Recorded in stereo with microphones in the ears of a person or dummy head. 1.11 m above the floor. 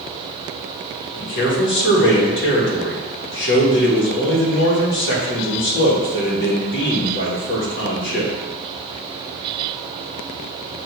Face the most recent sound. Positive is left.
turn(degrees=50)  # may be behind; listen again after turning